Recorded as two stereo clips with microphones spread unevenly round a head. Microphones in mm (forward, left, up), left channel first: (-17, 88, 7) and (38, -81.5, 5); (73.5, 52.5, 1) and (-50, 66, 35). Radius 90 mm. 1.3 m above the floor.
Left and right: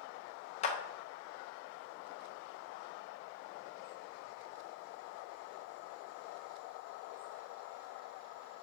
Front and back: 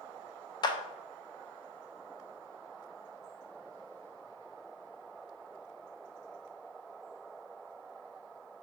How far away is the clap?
About 0.6 m.